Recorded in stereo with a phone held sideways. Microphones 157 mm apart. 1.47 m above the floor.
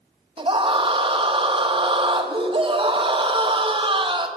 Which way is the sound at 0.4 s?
35° right (ahead or behind).